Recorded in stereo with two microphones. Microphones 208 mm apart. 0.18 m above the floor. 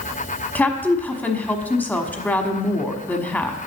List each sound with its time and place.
0.6 s a woman speaking: 10° left (ahead or behind), 1.0 m